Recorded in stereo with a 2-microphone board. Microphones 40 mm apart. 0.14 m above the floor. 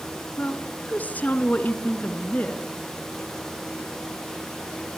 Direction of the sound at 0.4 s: 40° left (ahead or behind).